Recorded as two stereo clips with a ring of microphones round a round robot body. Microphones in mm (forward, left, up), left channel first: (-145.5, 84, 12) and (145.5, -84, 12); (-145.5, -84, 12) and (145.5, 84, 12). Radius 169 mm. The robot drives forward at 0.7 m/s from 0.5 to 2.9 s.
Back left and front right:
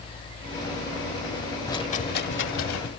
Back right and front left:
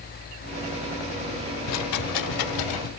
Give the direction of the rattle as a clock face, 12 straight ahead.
4 o'clock.